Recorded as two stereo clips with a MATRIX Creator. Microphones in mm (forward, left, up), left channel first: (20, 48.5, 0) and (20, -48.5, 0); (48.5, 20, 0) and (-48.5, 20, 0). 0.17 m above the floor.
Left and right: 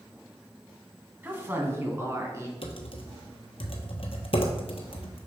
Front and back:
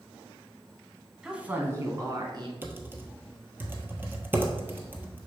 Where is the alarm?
No alarm in this recording.